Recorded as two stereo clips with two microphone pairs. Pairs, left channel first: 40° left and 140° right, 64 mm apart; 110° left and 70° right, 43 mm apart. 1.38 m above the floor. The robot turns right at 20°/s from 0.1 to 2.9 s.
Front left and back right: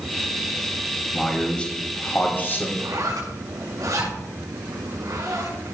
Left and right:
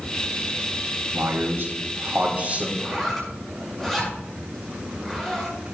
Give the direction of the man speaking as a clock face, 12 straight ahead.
1 o'clock.